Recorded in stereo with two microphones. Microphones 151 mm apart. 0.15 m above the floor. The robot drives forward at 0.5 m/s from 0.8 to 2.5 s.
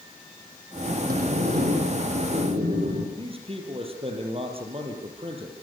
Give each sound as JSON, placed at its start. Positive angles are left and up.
{"t": 1.1, "sound": "a sliding door", "side_deg": -75, "distance_m": 6.0}
{"t": 3.2, "sound": "a man speaking", "side_deg": -40, "distance_m": 5.0}